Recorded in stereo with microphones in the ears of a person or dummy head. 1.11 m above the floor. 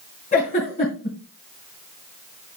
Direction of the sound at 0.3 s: 30° left (ahead or behind).